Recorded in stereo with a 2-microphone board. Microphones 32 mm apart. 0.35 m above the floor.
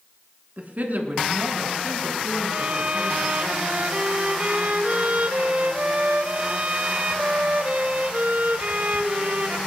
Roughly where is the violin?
Right.